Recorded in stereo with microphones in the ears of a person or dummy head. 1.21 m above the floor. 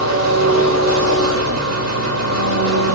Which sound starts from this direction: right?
An engine running, at 0.0 s.